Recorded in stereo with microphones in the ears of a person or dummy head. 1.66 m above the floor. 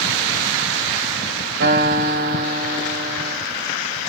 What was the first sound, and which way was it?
A guitar, 65° right (ahead or behind).